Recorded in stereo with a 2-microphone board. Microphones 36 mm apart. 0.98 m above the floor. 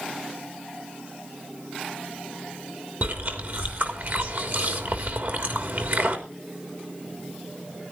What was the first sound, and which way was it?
Chewing, 60° right (ahead or behind).